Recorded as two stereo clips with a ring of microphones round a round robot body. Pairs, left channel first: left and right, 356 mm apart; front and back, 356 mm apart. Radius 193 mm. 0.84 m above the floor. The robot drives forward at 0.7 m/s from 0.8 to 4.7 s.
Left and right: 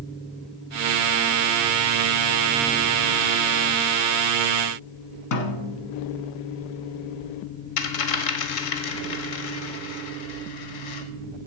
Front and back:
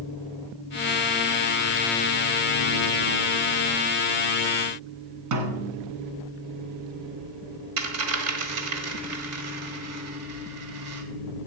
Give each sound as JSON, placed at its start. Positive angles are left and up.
{"t": 5.3, "sound": "a snare drum", "azimuth_deg": 135, "distance_m": 1.6}
{"t": 7.8, "sound": "a dropped coin", "azimuth_deg": 125, "distance_m": 1.3}